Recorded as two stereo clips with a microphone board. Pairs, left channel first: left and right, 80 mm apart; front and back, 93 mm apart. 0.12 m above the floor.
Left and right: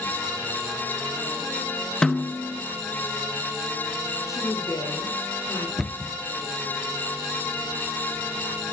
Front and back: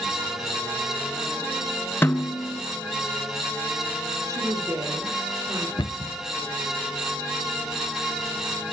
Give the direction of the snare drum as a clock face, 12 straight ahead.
11 o'clock.